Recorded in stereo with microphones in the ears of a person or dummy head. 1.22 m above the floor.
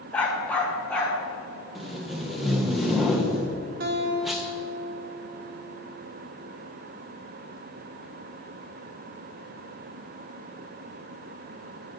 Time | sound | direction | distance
0.1 | a dog barking | 10° left (ahead or behind) | 1.1 m
1.8 | tape being pulled | 5° right (ahead or behind) | 0.5 m
3.8 | a guitar | 55° right (ahead or behind) | 1.2 m